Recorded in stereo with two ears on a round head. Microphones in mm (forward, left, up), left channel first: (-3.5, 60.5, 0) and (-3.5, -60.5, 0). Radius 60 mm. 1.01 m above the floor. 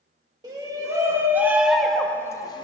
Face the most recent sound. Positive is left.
turn(degrees=35)  # may be behind; listen again after turning